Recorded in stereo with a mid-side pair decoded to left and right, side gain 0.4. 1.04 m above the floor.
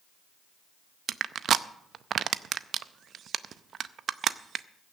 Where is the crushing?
60° right, 0.5 m.